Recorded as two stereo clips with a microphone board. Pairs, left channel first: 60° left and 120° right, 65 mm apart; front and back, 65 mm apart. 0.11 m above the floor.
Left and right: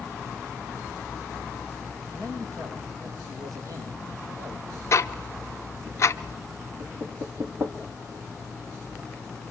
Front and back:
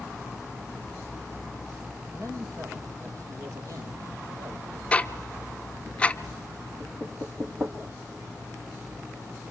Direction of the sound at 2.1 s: 145° right.